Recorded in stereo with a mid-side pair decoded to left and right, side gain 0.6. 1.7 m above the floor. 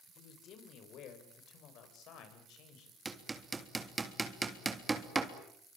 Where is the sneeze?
No sneeze in this recording.